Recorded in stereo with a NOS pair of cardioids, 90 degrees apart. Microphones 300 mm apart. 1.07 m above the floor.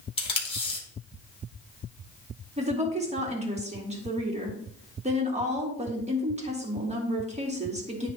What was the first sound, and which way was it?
Tape being pulled, 20° left.